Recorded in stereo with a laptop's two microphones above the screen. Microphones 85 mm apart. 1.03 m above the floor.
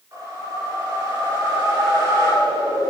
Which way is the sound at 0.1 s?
40° right (ahead or behind).